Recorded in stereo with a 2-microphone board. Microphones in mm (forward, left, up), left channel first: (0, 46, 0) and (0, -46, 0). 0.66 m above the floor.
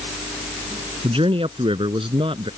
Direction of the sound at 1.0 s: 80° right.